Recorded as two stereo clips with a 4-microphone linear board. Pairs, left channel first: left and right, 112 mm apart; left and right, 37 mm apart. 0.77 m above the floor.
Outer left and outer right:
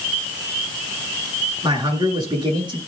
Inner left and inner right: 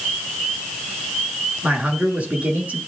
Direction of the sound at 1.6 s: 40° right (ahead or behind).